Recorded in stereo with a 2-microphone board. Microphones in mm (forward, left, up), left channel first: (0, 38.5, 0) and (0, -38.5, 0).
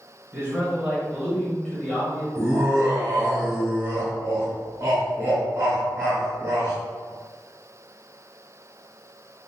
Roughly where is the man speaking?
Right.